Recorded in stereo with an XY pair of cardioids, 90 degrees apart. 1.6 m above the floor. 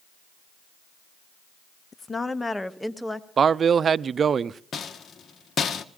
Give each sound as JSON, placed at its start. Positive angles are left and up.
{"t": 1.9, "sound": "a woman speaking", "azimuth_deg": 35, "distance_m": 0.7}
{"t": 3.4, "sound": "a man speaking", "azimuth_deg": -50, "distance_m": 0.5}
{"t": 4.7, "sound": "a rattle", "azimuth_deg": 55, "distance_m": 1.1}